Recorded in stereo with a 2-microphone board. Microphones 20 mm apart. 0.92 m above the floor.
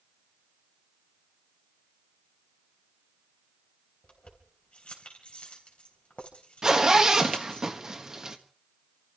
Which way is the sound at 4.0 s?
70° left (ahead or behind).